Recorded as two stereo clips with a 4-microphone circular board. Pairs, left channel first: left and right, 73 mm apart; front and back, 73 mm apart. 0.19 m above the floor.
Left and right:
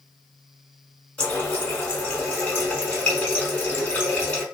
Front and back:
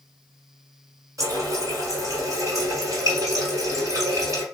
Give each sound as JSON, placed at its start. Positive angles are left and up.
{"t": 1.2, "sound": "a running tap", "azimuth_deg": 160, "distance_m": 1.4}